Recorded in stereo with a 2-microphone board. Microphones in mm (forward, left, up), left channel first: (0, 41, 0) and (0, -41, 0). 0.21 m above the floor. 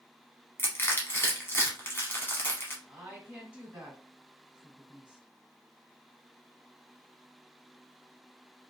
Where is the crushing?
30° left (ahead or behind), 1.0 m.